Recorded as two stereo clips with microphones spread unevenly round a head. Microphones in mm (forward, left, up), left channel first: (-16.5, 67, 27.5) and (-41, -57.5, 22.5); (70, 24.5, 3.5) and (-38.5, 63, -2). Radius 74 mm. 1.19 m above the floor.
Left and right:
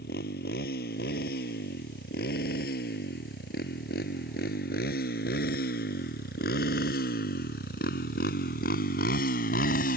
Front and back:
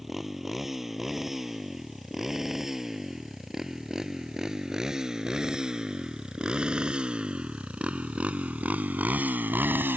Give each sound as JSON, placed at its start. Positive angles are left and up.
{"t": 0.0, "sound": "a motorcycle", "azimuth_deg": 70}